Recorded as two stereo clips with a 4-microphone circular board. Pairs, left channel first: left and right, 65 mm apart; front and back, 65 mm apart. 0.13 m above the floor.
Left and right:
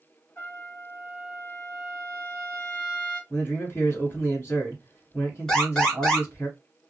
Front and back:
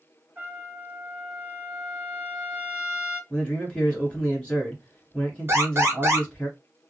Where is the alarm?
165° left, 1.5 m.